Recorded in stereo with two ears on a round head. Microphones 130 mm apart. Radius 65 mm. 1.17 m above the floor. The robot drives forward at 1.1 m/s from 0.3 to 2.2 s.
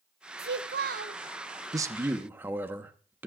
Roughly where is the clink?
I don't hear a clink.